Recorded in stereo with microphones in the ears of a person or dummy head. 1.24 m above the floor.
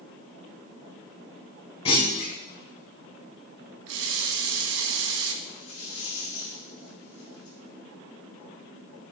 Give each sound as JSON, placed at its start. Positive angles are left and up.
{"t": 1.9, "sound": "a clunk", "side_deg": 35, "distance_m": 1.8}
{"t": 3.9, "sound": "a running tap", "side_deg": -75, "distance_m": 0.9}
{"t": 5.4, "sound": "a rattle", "side_deg": 40, "distance_m": 4.5}